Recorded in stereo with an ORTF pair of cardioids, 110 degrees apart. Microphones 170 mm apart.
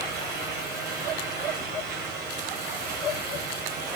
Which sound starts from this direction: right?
A fan, at 0.0 s.